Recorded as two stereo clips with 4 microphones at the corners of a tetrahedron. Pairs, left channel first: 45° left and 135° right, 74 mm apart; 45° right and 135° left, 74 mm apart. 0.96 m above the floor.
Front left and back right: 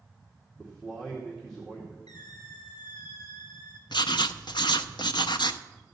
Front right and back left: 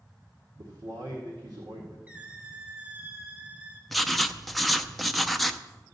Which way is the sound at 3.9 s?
45° left.